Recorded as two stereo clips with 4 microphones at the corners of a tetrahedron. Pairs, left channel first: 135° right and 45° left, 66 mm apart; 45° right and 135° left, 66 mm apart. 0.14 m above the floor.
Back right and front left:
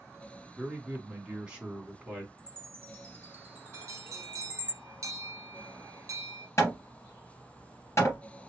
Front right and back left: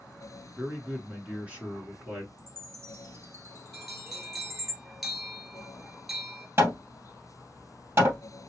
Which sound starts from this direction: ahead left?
A bell, at 3.7 s.